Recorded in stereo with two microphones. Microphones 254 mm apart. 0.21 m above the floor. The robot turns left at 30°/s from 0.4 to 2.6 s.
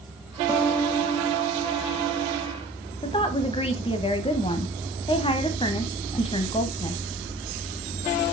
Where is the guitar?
170° right, 1.2 m; by 2.6 s 125° left, 1.2 m.